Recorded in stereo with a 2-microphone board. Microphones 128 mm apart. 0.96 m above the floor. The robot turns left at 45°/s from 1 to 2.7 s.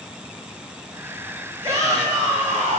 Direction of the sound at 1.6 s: 25° right.